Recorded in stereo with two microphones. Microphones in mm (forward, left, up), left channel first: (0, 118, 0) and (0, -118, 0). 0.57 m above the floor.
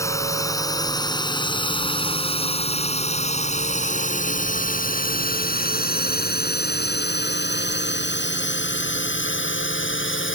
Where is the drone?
10° left (ahead or behind); by 10.3 s 60° left (ahead or behind).